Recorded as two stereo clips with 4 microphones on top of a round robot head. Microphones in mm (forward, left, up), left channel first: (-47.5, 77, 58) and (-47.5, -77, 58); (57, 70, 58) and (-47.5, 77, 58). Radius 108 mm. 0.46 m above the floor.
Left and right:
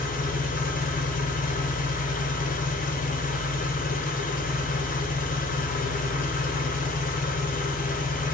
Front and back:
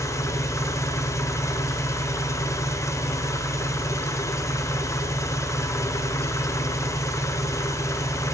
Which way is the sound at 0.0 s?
60° left.